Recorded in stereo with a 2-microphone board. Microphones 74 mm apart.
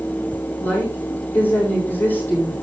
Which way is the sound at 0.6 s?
30° left (ahead or behind).